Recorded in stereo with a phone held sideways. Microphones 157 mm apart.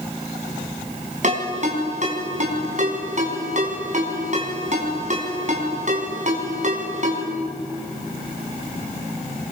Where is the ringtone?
50° right (ahead or behind), 4.5 m.